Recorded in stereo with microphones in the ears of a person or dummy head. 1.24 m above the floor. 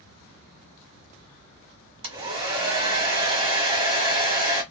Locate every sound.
2.0 s a hair dryer: 35° right (ahead or behind), 1.2 m